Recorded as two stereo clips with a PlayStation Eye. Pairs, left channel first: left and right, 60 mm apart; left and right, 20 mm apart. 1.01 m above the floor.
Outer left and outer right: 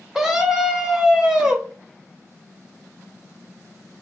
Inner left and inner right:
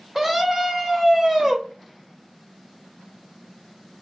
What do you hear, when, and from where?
0.1 s a scream: 10° right (ahead or behind), 0.9 m